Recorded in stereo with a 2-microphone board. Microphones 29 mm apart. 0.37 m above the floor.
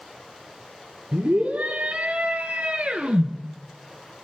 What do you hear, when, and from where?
1.1 s a scream: 70° right (ahead or behind), 5.5 m; by 3.3 s 50° right (ahead or behind), 6.5 m